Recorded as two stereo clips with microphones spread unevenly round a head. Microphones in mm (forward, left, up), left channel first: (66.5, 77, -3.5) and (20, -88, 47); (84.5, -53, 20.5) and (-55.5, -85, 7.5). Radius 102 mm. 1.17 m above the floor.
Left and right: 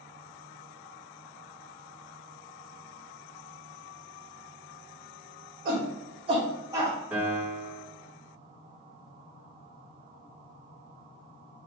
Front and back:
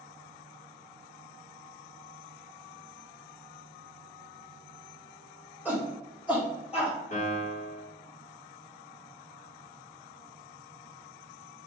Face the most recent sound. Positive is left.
turn(degrees=-25)